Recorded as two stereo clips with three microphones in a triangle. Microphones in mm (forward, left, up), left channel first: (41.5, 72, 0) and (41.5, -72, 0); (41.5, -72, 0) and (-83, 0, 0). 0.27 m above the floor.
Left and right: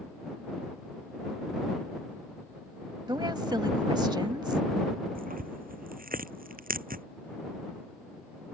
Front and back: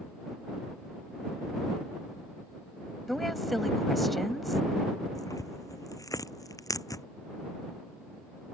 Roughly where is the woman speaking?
Behind right.